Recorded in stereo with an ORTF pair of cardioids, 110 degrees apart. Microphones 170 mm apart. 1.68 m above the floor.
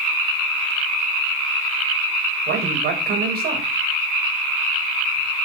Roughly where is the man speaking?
Right.